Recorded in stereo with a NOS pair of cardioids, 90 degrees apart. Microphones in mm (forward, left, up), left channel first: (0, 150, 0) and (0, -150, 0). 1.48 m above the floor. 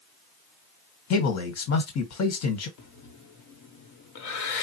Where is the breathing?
65° left, 1.1 m.